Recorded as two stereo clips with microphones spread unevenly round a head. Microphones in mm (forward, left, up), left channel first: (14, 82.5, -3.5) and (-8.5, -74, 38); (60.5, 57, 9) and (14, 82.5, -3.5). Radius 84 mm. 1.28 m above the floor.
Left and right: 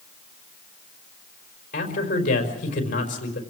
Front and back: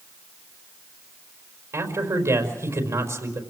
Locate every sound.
1.7 s a man speaking: 125° left, 5 m